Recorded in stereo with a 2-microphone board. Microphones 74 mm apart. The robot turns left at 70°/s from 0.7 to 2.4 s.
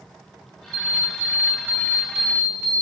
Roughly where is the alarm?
Right.